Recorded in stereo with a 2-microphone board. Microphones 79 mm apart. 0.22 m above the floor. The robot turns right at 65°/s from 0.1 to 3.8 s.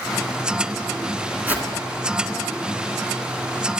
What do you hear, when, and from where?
1.5 s a whoosh: 25° right (ahead or behind), 1.9 m; by 1.7 s 10° right (ahead or behind), 1.9 m